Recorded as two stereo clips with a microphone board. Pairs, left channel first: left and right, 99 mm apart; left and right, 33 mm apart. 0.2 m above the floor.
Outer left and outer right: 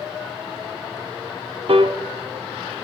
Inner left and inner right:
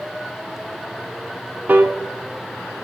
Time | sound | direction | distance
1.7 | a piano | 60° right (ahead or behind) | 0.5 m